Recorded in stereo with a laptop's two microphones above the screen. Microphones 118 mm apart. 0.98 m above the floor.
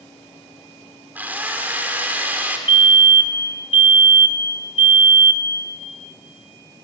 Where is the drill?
15° right (ahead or behind), 3 m.